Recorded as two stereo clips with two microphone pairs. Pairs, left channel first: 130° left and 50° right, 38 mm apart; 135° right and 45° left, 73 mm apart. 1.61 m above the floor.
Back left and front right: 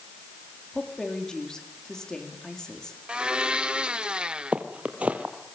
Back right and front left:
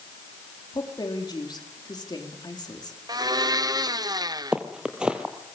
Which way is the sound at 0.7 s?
155° right.